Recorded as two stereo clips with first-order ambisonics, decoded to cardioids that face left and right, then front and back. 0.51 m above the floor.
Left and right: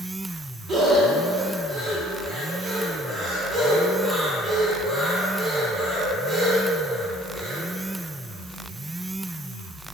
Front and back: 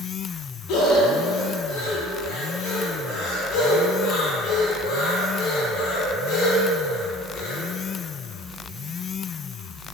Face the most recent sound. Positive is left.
turn(degrees=-25)